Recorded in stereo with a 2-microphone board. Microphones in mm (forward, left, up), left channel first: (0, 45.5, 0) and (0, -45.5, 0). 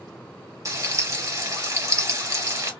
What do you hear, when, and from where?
0.7 s frying: 40° right (ahead or behind), 0.9 m